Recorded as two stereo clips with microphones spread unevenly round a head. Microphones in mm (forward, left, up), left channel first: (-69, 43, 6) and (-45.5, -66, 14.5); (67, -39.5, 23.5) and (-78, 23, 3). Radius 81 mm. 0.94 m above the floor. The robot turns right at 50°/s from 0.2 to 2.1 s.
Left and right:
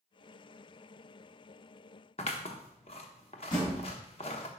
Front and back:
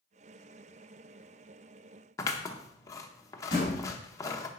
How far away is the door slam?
About 3.5 m.